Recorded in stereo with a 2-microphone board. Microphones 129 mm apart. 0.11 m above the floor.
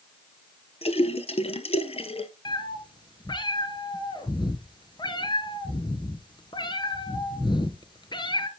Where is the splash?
50° left (ahead or behind), 0.9 m.